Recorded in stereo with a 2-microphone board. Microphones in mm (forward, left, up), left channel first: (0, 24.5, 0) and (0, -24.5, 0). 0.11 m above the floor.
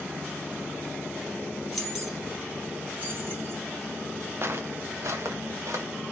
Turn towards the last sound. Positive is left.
turn(degrees=-80)